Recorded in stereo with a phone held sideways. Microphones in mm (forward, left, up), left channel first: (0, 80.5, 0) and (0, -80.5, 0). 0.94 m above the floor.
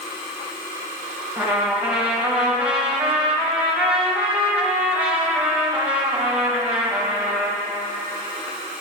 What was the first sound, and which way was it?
A trumpet, 5° right (ahead or behind).